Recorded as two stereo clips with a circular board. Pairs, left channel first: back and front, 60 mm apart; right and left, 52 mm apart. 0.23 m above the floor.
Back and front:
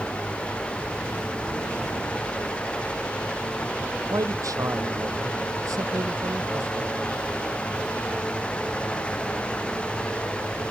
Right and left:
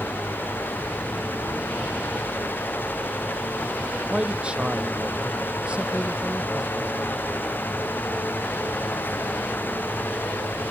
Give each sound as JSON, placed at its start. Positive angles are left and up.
{"t": 4.1, "sound": "a man speaking", "azimuth_deg": 20}